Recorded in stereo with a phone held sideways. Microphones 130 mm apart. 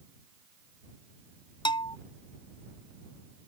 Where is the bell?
40° left (ahead or behind).